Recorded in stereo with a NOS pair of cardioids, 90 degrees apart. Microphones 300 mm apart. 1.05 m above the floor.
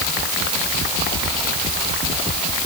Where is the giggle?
I don't hear a giggle.